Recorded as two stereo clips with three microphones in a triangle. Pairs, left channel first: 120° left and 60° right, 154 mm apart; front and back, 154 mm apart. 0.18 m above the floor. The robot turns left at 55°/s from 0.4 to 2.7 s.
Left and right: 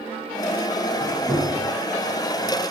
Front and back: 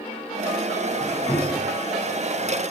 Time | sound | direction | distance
1.0 | a squeak | 65° left | 0.6 m